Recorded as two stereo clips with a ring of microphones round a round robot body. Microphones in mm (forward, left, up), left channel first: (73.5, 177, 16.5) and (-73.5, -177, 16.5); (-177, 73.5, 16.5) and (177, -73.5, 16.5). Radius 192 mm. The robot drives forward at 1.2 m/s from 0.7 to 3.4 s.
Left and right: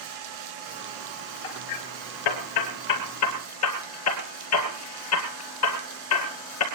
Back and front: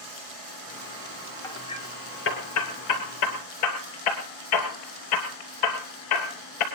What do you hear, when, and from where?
1.4 s hammering: 75° left, 2.5 m; by 6.7 s 120° left, 3 m